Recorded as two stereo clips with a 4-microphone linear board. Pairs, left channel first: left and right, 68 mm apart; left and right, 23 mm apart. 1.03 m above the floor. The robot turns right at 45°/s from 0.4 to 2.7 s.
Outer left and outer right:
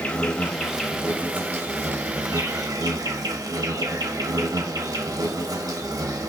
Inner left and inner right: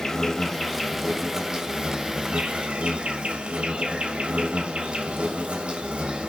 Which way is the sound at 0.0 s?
165° left.